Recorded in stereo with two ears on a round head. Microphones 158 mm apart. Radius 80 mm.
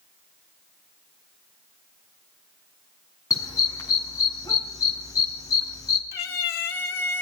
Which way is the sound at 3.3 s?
20° left (ahead or behind).